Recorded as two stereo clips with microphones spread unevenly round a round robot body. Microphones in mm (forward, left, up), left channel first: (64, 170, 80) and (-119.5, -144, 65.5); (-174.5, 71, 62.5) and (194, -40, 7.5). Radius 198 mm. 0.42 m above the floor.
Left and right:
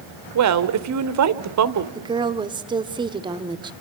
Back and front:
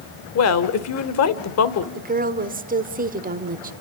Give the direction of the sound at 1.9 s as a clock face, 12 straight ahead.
2 o'clock.